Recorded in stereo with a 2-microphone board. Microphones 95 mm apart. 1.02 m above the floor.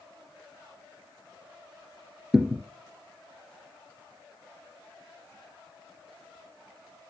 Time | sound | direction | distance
2.3 | a thud | 5° right (ahead or behind) | 1.1 m